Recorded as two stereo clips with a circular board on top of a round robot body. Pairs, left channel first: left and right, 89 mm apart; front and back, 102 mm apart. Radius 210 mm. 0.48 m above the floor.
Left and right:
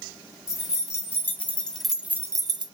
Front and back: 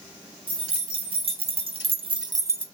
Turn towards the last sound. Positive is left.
turn(degrees=-110)